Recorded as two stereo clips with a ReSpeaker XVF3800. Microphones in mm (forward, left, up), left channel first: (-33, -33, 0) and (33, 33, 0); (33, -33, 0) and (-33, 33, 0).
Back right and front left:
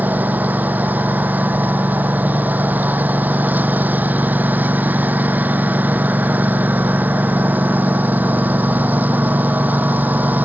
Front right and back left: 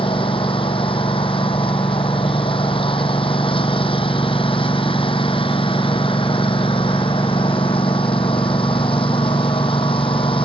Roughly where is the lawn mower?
Ahead right.